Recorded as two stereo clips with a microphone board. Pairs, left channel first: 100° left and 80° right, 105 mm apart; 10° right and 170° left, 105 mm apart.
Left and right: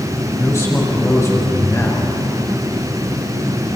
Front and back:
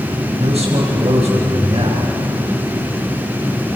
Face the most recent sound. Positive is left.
turn(degrees=165)